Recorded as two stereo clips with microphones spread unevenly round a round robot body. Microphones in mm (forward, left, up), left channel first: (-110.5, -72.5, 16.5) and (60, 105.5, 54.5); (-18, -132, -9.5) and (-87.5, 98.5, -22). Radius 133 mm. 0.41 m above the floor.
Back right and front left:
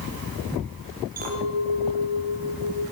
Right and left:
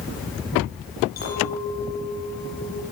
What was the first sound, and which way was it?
A clink, 15° right.